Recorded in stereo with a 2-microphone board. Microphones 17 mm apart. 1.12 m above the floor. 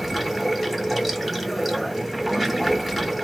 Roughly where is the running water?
Centre.